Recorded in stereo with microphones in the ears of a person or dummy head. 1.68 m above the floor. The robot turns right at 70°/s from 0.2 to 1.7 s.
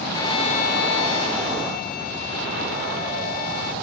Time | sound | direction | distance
0.1 | a violin | 20° left | ?